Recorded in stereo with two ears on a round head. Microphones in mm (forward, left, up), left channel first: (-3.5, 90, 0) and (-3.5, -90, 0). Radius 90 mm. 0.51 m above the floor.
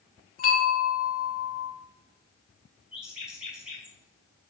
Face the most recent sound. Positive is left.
turn(degrees=-5)  # may be behind; listen again after turning